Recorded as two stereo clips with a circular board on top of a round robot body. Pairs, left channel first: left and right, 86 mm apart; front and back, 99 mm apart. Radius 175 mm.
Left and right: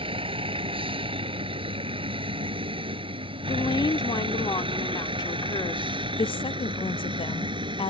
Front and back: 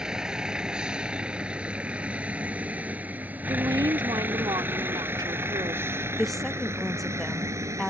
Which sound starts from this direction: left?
A woman speaking, at 6.2 s.